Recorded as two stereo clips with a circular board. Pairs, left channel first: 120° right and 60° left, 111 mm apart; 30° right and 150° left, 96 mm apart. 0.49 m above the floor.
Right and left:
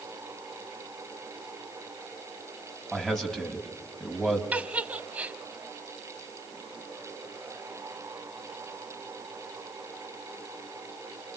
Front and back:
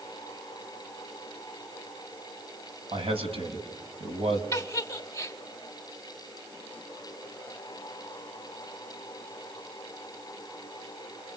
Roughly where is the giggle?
Ahead.